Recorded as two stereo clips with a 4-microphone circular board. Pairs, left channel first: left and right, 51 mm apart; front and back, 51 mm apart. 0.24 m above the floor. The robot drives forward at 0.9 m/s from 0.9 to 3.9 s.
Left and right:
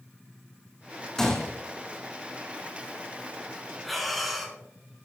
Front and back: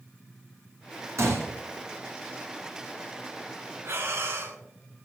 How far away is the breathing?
About 2 m.